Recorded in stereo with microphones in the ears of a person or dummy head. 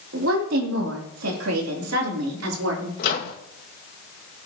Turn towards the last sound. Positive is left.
turn(degrees=55)  # may be behind; listen again after turning